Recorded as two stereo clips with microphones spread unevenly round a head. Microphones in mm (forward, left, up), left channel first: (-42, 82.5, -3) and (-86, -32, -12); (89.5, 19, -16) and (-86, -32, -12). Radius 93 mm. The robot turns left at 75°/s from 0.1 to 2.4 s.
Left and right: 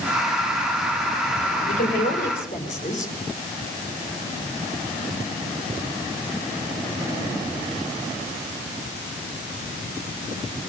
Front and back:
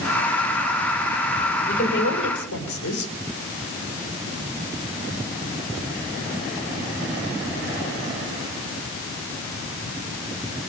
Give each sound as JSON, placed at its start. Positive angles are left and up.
{"t": 1.7, "sound": "a woman speaking", "azimuth_deg": 70, "distance_m": 5.5}